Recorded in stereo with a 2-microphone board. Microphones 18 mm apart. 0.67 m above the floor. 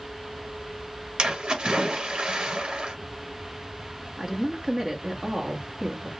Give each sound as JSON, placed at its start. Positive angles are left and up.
{"t": 1.2, "sound": "a splash", "side_deg": -65, "distance_m": 1.4}
{"t": 4.2, "sound": "a woman speaking", "side_deg": -40, "distance_m": 1.1}